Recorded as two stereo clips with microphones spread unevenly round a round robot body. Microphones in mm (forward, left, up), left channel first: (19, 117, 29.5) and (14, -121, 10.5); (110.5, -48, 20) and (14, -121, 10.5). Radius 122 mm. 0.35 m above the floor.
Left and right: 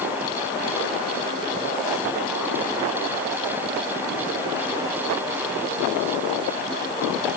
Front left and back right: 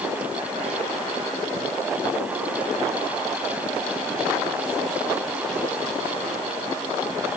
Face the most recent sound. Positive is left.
No sound to turn to.